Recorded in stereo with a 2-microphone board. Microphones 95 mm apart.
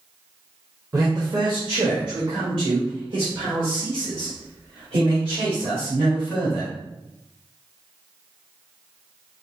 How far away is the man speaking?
About 0.8 m.